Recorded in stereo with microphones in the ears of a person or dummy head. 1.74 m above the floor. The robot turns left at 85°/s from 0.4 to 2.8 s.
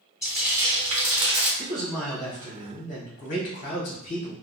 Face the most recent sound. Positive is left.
turn(degrees=100)